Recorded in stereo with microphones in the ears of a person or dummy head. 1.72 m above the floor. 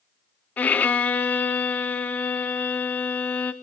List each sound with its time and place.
0.6 s a violin: 10° left (ahead or behind), 0.8 m